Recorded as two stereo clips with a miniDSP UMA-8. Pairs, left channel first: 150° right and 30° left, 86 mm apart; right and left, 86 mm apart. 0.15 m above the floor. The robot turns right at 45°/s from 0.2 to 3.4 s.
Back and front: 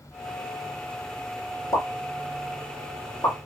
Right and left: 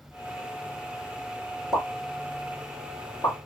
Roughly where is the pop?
Behind.